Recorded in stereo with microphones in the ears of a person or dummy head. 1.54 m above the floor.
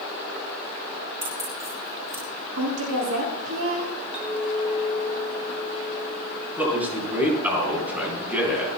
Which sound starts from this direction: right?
A woman speaking, at 2.6 s.